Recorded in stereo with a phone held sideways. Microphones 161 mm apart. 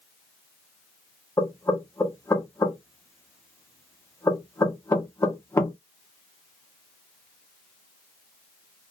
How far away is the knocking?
About 0.7 m.